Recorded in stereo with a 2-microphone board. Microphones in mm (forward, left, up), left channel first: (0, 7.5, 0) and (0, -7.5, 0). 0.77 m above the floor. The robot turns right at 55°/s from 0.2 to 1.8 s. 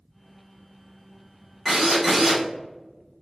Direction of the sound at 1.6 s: Centre (ahead or behind).